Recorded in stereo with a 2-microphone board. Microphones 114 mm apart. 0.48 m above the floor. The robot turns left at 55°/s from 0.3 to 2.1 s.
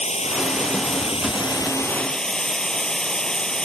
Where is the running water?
105° left; by 3.7 s 5° left.